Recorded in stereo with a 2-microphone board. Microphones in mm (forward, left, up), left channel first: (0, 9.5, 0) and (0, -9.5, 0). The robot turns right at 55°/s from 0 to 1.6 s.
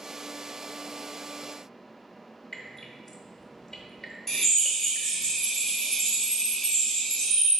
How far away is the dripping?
About 0.8 m.